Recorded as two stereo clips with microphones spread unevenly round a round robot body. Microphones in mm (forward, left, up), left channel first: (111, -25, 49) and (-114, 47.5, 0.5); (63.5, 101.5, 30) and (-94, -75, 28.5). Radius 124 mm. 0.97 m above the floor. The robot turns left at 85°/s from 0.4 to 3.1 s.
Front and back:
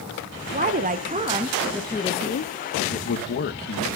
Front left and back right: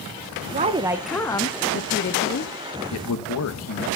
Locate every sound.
0.5 s a woman speaking: 175° right, 0.7 m; by 2.5 s 15° left, 0.7 m
2.9 s a man speaking: 50° left, 1.0 m; by 3.9 s 35° left, 1.0 m